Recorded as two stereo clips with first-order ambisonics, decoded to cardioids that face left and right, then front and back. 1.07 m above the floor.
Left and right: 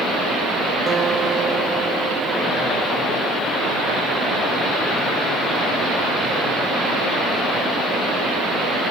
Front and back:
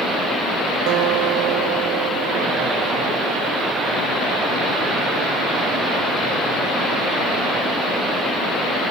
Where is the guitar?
160° right.